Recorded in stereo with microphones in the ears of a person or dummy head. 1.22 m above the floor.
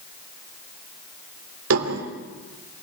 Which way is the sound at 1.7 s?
85° right.